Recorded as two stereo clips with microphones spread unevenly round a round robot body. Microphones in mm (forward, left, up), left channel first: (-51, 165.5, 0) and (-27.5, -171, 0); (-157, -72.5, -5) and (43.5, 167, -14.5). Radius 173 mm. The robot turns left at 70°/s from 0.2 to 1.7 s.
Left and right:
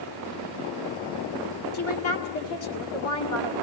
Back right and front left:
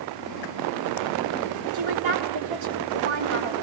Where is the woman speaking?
45° left, 2 m.